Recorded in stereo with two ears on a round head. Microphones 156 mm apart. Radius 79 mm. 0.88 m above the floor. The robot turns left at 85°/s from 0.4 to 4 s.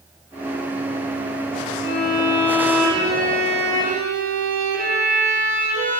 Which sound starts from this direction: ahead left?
A violin, at 1.8 s.